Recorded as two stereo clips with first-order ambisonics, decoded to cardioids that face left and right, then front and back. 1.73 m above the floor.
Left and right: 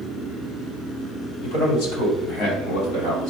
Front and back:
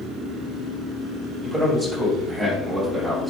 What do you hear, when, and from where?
1.4 s a man speaking: 85° left, 3 m; by 3.3 s 100° left, 3.5 m